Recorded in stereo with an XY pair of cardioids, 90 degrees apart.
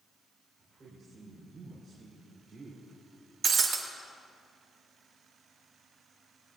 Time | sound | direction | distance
0.6 | a woman speaking | 55° right | 4.5 m
3.4 | breaking glass | 60° right | 1.9 m